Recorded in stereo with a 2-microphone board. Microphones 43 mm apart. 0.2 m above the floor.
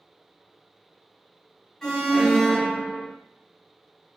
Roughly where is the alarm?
Centre.